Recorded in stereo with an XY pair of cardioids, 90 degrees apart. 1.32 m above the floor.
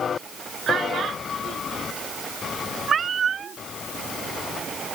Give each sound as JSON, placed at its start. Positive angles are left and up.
{"t": 0.7, "sound": "a child speaking", "azimuth_deg": -60}
{"t": 2.9, "sound": "a cat meowing", "azimuth_deg": -55}